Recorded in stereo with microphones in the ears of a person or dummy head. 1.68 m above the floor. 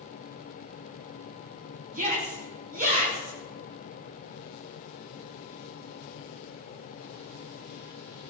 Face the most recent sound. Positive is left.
turn(degrees=-35)  # may be behind; listen again after turning